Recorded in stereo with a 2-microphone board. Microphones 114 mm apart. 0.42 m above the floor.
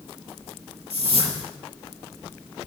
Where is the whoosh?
60° right (ahead or behind), 6 m.